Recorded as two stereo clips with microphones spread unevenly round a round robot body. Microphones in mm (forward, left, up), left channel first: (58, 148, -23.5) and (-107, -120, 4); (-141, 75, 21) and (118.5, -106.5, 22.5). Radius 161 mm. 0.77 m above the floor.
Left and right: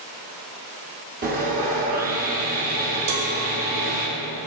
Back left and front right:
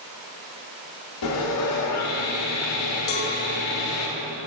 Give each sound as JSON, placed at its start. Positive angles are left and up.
{"t": 1.2, "sound": "sawing", "azimuth_deg": 175, "distance_m": 1.5}
{"t": 3.1, "sound": "a cowbell", "azimuth_deg": -155, "distance_m": 1.2}